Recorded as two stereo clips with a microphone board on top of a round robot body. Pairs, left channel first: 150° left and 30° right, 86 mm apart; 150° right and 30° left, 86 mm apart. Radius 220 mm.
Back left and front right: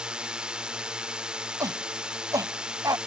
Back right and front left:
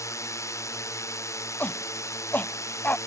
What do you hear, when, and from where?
0.0 s a drone: 110° right
1.6 s a shout: 80° right